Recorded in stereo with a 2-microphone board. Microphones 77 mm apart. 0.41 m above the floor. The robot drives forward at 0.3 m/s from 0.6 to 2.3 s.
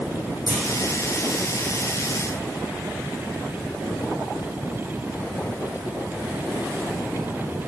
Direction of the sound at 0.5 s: 55° left (ahead or behind).